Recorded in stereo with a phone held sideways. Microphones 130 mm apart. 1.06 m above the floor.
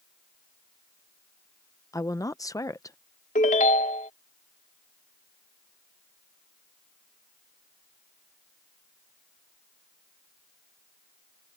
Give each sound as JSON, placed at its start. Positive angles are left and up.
{"t": 1.9, "sound": "a woman speaking", "side_deg": 25}
{"t": 3.4, "sound": "a ringtone", "side_deg": 75}